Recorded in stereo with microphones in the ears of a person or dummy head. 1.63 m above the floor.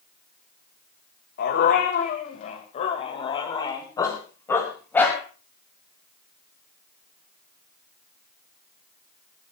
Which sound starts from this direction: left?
A dog barking, at 1.4 s.